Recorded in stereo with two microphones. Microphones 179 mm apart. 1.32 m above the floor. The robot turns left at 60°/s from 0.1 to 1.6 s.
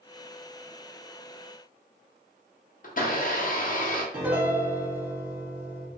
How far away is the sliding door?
No sliding door in this recording.